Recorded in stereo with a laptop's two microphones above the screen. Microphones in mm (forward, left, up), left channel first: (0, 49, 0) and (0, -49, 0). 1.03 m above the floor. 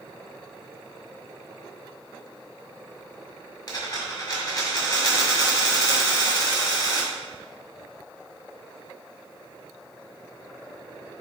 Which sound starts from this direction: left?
A dropped coin, at 3.7 s.